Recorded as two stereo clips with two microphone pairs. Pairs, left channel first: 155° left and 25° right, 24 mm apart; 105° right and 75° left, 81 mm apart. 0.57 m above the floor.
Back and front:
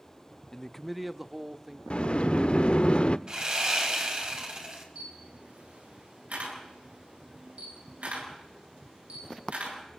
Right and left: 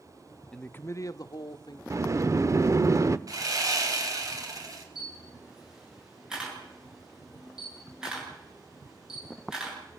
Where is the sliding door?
120° left, 0.7 m.